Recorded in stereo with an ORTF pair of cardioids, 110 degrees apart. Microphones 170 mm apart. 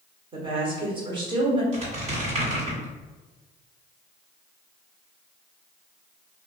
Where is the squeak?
45° right, 1.9 m.